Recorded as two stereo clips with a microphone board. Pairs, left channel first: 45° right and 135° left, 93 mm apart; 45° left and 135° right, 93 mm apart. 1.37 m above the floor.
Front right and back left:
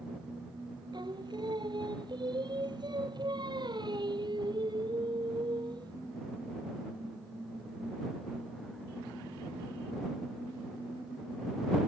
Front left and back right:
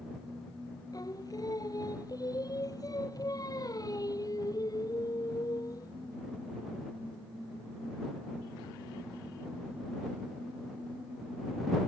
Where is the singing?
95° left.